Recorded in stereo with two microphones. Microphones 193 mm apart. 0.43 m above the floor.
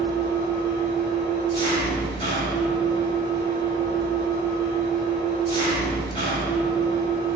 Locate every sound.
0.0 s an engine running: 25° left (ahead or behind), 1.1 m